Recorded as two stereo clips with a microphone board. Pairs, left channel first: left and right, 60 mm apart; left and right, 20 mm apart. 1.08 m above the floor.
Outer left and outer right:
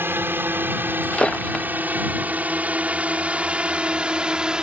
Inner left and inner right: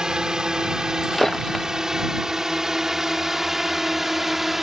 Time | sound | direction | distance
0.0 | a drone | 35° right (ahead or behind) | ?
1.0 | breaking glass | 15° left (ahead or behind) | ?